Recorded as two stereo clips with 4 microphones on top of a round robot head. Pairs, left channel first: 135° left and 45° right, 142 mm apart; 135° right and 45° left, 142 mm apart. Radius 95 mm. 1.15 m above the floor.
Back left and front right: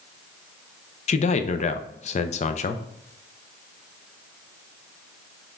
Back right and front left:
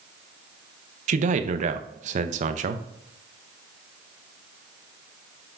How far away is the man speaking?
About 0.5 m.